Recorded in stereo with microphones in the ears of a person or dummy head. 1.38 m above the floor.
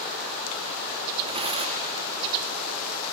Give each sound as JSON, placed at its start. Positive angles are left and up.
{"t": 1.3, "sound": "tearing paper", "side_deg": -35, "distance_m": 1.6}